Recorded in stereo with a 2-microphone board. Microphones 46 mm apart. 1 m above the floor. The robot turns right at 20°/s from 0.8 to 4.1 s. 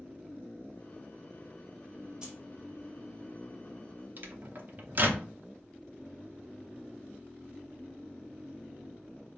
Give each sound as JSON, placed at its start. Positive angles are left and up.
{"t": 2.2, "sound": "keys jangling", "side_deg": -15, "distance_m": 1.0}
{"t": 4.2, "sound": "a microwave", "side_deg": -40, "distance_m": 0.6}